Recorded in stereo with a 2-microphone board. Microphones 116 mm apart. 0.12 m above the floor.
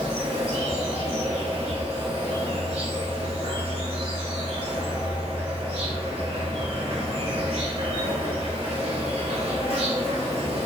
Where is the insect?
55° right (ahead or behind), 0.9 m.